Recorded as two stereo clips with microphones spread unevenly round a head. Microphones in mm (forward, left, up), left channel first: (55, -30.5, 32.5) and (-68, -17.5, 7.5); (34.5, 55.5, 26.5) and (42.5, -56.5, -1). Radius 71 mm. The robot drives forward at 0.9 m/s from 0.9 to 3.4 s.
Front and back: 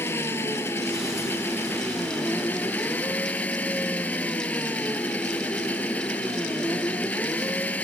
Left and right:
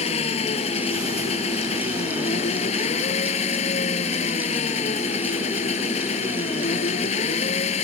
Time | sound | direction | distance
0.0 | an engine running | 70° left | ?